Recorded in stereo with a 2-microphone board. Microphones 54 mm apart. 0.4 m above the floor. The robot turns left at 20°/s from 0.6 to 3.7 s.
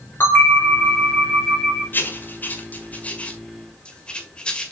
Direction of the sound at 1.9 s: 40° left (ahead or behind).